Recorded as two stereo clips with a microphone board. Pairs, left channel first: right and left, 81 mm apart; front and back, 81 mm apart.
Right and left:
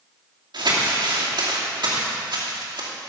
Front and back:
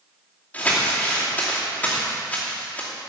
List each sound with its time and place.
0.5 s crumpling: 70° left, 2.5 m